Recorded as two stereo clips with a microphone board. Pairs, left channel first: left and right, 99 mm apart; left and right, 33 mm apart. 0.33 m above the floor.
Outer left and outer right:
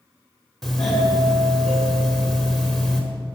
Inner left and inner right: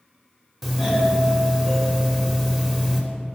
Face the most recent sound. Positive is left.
turn(degrees=5)  # may be behind; listen again after turning